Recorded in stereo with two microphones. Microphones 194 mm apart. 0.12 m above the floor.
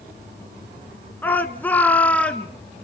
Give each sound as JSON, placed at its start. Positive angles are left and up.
{"t": 1.2, "sound": "a shout", "side_deg": 10, "distance_m": 1.1}